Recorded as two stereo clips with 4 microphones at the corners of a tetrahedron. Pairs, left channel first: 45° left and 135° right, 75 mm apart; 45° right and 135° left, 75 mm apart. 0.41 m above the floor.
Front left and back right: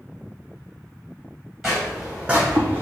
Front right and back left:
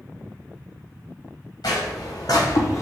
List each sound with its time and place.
1.6 s footsteps: 50° right, 1.2 m; by 2.8 s 85° right, 0.8 m